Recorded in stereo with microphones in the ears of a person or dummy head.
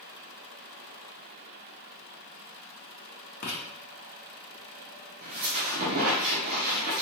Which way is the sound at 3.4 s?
55° left (ahead or behind).